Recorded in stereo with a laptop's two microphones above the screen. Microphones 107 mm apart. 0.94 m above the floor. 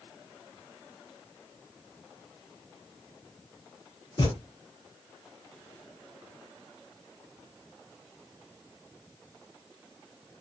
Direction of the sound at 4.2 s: 40° left (ahead or behind).